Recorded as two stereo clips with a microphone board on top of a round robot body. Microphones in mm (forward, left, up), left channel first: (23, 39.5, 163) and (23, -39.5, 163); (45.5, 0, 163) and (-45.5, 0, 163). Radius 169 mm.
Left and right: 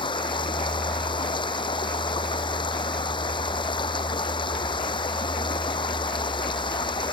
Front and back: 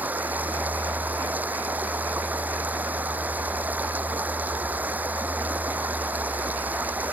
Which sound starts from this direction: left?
Running water, at 0.0 s.